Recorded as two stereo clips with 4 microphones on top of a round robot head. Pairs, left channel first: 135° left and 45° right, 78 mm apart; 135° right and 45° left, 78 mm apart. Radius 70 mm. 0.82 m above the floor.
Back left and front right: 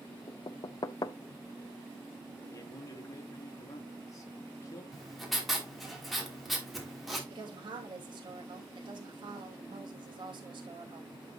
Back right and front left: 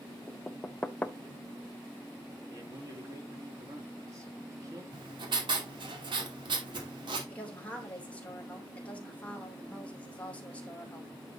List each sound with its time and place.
0.3 s knocking: 155° left, 0.6 m
2.5 s a man speaking: 90° left, 2 m
4.9 s writing: 45° left, 2.5 m
7.3 s a woman speaking: 60° right, 3 m